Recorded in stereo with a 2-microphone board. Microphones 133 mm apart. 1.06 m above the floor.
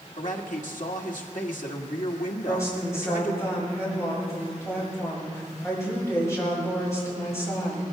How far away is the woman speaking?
About 7 m.